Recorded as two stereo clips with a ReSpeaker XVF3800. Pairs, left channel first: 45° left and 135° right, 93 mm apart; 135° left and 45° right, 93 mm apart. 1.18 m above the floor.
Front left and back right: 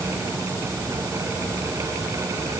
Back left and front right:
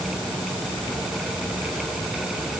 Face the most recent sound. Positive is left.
No sound to turn to.